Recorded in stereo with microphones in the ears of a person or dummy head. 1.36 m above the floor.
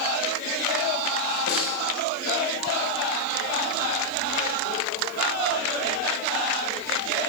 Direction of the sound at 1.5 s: 60° left (ahead or behind).